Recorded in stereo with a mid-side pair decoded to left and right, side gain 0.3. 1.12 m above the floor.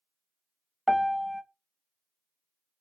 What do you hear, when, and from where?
0.9 s a piano: 5° right, 0.7 m